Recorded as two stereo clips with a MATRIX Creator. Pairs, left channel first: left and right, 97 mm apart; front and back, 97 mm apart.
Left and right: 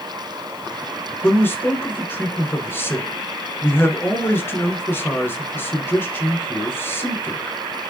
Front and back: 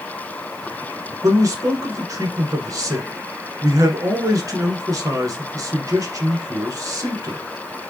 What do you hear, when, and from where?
1.2 s a man speaking: 145° left, 1.4 m